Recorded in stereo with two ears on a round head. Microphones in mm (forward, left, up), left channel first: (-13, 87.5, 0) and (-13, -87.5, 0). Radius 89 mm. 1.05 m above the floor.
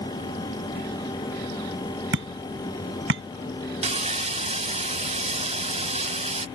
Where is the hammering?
75° right (ahead or behind).